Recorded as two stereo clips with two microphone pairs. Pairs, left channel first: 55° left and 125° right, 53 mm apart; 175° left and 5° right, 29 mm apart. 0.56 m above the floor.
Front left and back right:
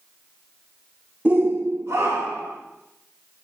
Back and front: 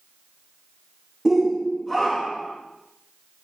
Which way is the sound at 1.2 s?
85° right.